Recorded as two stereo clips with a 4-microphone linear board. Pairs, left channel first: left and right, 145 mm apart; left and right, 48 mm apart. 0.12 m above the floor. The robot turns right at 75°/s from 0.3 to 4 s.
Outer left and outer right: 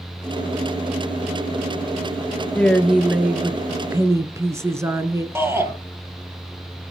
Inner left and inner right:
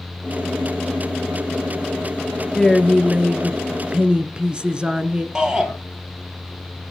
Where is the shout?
15° right (ahead or behind), 3 m.